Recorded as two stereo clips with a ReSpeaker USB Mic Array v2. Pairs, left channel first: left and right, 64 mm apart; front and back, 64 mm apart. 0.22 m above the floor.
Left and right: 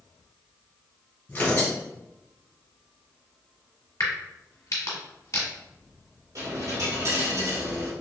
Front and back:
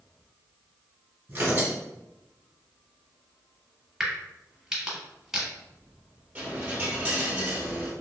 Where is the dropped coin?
115° right, 1.3 m.